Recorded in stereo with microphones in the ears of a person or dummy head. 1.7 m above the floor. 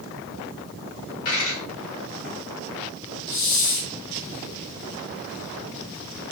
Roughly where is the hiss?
Left.